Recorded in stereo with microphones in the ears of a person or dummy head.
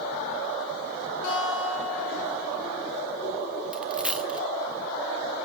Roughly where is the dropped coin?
Centre.